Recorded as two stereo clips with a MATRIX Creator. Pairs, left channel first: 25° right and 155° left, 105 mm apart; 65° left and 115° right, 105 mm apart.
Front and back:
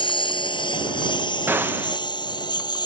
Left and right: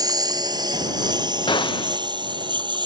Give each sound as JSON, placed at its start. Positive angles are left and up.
{"t": 0.0, "sound": "a lawn mower", "azimuth_deg": -60}
{"t": 1.5, "sound": "a gunshot", "azimuth_deg": 90}